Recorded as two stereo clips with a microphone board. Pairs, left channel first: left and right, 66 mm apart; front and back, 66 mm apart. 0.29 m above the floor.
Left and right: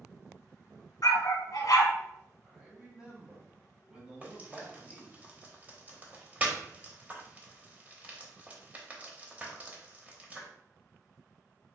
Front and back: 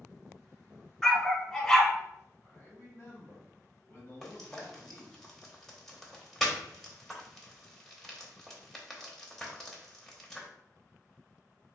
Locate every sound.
1.0 s a dog barking: 80° left, 0.7 m
2.4 s a man speaking: 30° right, 1.5 m
4.2 s frying: 75° right, 0.8 m